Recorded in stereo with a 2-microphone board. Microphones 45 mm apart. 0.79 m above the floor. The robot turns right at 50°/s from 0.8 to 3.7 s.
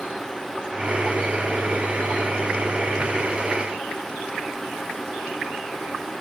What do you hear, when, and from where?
Only background noise.